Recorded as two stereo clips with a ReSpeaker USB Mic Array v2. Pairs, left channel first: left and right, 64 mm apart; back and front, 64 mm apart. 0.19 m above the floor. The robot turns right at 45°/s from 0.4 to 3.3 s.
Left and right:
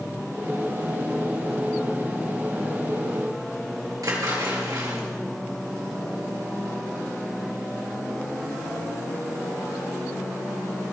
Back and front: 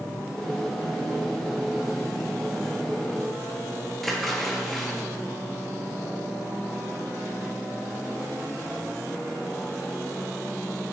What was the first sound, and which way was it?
A splash, 95° right.